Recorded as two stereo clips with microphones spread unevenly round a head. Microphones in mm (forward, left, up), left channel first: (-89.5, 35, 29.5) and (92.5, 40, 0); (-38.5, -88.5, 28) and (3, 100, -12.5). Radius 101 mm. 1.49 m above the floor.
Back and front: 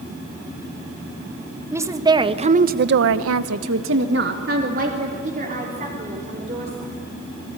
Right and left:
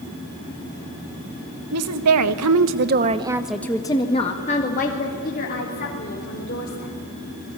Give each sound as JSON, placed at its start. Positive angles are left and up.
{"t": 1.7, "sound": "a woman speaking", "azimuth_deg": 80, "distance_m": 1.9}